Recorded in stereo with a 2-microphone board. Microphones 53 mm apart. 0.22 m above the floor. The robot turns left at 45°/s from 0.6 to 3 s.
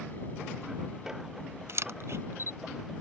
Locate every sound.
1.7 s a camera shutter: 60° right (ahead or behind); by 2.6 s 50° right (ahead or behind)